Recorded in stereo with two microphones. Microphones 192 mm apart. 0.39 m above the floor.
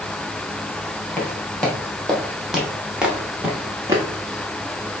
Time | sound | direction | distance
1.2 | footsteps | 5° left (ahead or behind) | 3.5 m